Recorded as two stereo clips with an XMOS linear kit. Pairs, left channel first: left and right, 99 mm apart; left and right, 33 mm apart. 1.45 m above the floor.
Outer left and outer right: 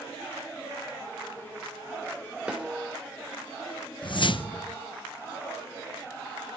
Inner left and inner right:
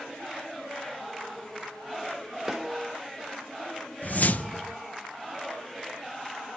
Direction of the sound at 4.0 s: 55° left (ahead or behind).